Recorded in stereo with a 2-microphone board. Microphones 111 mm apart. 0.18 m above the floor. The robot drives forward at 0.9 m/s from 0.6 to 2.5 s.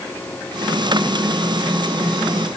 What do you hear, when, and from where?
Only background noise.